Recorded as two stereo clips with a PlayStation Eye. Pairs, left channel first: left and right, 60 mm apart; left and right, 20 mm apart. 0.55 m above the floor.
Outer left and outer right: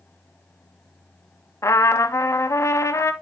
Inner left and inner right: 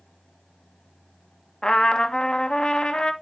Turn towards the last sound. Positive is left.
turn(degrees=55)  # may be behind; listen again after turning